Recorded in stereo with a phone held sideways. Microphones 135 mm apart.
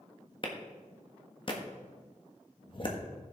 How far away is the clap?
About 1.3 m.